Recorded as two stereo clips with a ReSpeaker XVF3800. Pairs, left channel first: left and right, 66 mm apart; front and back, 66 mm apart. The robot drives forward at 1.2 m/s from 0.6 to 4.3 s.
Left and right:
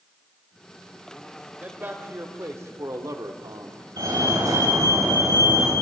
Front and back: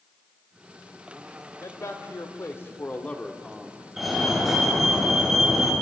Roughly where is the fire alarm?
Right.